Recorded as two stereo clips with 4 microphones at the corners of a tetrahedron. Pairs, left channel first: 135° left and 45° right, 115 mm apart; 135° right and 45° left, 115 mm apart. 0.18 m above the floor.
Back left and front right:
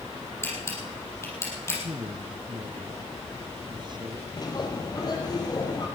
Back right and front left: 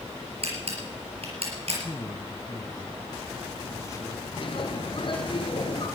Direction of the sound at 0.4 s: 70° left.